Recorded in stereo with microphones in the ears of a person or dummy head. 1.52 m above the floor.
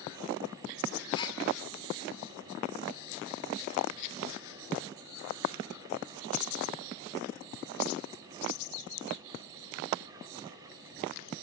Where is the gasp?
30° left (ahead or behind), 2.0 m.